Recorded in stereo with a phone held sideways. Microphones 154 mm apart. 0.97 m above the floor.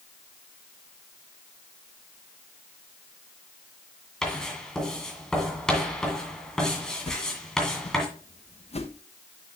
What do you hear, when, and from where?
4.2 s writing: 5° left (ahead or behind), 2 m
7.1 s a whoosh: 45° left (ahead or behind), 0.8 m